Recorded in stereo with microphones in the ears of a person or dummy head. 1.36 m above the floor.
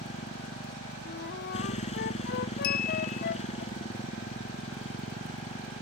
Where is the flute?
55° left (ahead or behind).